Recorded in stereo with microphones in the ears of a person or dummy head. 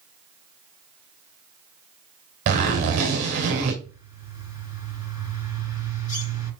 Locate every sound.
2.5 s a zipper: 35° right (ahead or behind), 2.0 m
3.8 s a bird: 55° left (ahead or behind), 5 m